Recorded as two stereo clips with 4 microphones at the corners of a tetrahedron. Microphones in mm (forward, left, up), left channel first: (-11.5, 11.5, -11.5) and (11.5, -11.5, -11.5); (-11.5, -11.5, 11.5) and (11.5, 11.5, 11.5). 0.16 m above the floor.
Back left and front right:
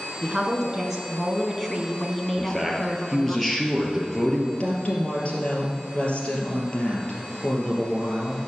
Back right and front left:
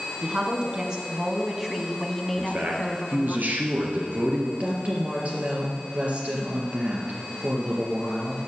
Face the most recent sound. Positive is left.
turn(degrees=85)